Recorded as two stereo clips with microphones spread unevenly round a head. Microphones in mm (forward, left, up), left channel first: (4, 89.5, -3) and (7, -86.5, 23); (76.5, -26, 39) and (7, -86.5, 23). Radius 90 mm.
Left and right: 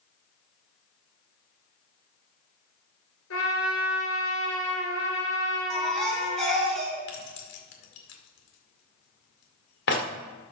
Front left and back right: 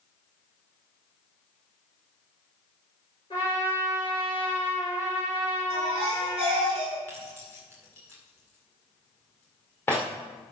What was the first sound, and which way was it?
A trumpet, 105° left.